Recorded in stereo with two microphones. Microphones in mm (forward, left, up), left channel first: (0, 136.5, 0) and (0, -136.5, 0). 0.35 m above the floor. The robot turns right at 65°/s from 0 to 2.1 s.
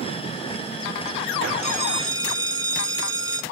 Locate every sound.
1.6 s a bell: 25° left, 1.7 m; by 3.4 s 55° left, 1.7 m